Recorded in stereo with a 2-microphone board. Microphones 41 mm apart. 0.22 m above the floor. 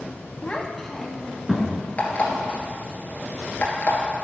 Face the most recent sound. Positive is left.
turn(degrees=40)  # may be behind; listen again after turning